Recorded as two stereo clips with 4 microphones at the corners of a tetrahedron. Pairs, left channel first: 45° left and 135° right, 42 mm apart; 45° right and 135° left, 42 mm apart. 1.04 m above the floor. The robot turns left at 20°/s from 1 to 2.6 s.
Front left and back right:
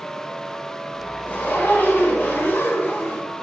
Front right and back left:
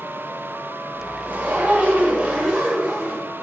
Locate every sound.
1.3 s a zipper: 90° left, 8 m; by 3.3 s 65° left, 8 m